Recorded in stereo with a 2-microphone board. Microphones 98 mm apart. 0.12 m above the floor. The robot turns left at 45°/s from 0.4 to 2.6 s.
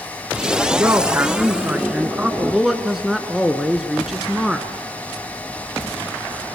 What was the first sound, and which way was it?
A man speaking, 25° right (ahead or behind).